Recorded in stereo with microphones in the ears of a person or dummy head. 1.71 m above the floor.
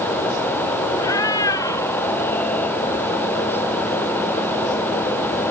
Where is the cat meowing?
20° left (ahead or behind); by 2.8 s 10° left (ahead or behind).